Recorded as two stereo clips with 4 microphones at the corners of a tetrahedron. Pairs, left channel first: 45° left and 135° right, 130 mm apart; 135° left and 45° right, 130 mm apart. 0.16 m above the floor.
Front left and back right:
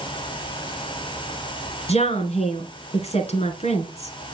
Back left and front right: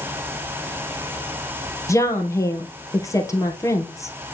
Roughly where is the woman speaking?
Left.